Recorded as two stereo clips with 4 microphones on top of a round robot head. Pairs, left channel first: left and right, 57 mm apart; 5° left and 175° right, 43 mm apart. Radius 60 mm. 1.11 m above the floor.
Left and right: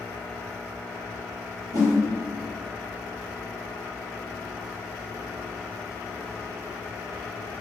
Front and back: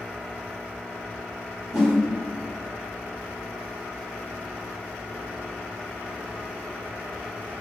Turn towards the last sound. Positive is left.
turn(degrees=-95)